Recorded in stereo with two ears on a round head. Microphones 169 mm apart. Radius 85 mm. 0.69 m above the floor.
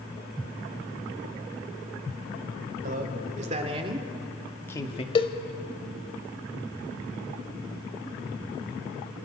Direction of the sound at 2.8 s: 50° right (ahead or behind).